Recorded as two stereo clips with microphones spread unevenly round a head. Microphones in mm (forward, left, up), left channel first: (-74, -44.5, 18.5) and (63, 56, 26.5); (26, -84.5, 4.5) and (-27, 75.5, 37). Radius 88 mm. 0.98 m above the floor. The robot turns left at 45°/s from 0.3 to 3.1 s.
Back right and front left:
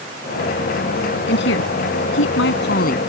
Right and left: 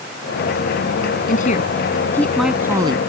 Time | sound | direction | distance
1.3 | a woman speaking | 110° right | ?